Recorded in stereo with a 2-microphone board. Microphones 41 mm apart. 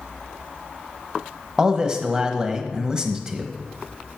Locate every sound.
1.6 s a man speaking: 20° right (ahead or behind), 1.0 m